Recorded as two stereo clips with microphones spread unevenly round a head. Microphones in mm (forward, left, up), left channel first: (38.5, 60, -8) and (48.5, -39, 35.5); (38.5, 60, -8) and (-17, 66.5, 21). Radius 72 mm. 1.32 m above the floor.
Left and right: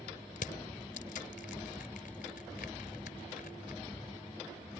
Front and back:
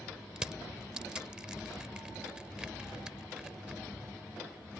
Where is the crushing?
125° left.